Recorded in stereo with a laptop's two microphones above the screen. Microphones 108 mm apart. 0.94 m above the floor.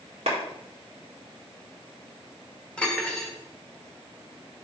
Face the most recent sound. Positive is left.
turn(degrees=10)  # may be behind; listen again after turning